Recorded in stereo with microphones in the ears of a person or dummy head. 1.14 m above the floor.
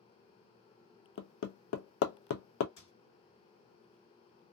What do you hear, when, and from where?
1.2 s hammering: 75° left (ahead or behind), 0.5 m
2.8 s a squeak: 75° left (ahead or behind), 1.6 m